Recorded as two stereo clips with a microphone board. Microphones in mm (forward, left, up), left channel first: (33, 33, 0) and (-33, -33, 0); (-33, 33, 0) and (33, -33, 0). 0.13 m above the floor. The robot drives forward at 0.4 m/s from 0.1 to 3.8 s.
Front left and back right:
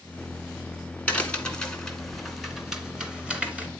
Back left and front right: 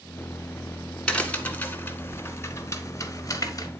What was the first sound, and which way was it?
A crack, 80° left.